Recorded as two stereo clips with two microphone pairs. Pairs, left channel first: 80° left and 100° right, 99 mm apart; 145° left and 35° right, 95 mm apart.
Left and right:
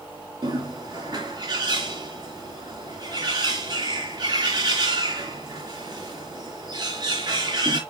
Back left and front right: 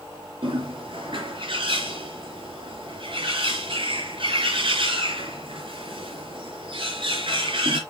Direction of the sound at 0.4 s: 60° right.